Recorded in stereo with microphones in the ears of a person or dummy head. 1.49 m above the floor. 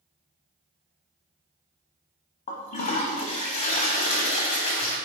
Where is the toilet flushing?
40° left (ahead or behind), 0.7 m.